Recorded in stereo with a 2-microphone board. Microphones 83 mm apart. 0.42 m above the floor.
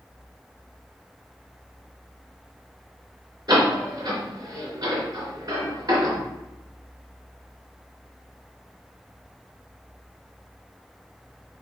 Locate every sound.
3.5 s a door slam: 45° right (ahead or behind), 3 m